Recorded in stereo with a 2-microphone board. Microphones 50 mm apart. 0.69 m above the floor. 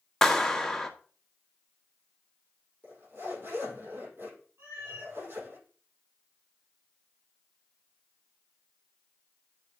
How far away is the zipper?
About 7 m.